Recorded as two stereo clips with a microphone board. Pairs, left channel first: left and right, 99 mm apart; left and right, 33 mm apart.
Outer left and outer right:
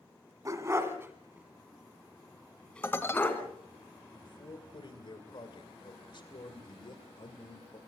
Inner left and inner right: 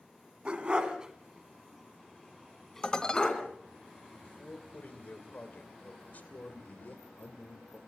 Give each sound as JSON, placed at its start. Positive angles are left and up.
{"t": 0.5, "sound": "a dog barking", "side_deg": -35, "distance_m": 2.0}
{"t": 2.8, "sound": "dishes clattering", "side_deg": 25, "distance_m": 1.7}
{"t": 4.2, "sound": "a man speaking", "side_deg": 55, "distance_m": 2.5}